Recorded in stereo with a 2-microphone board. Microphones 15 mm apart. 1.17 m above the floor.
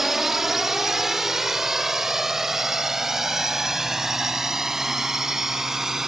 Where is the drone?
15° right (ahead or behind); by 6.1 s 25° right (ahead or behind).